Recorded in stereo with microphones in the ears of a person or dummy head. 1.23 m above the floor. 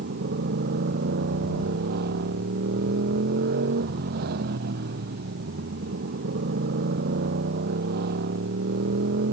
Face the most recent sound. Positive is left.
turn(degrees=-55)  # may be behind; listen again after turning